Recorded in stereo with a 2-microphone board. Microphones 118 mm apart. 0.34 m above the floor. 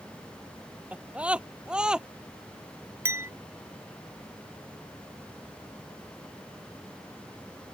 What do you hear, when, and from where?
0.9 s a scream: 10° right (ahead or behind); by 2.1 s 5° right (ahead or behind)
3.0 s a clink: 20° right (ahead or behind)